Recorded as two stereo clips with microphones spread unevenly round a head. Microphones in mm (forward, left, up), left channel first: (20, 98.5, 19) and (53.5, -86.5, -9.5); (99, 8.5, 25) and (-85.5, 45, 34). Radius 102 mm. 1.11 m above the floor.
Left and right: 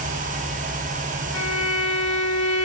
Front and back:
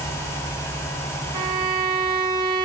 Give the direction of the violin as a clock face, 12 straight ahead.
9 o'clock.